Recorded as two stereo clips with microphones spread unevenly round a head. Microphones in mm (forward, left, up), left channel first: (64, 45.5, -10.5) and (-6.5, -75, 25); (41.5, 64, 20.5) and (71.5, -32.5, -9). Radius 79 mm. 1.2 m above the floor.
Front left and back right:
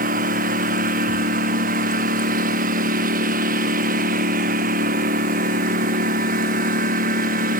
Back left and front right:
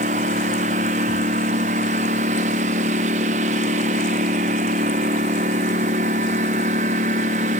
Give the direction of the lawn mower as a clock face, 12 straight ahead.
3 o'clock.